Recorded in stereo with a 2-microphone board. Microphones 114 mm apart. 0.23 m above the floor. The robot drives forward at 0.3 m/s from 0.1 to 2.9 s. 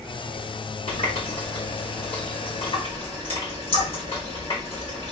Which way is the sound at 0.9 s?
65° left (ahead or behind).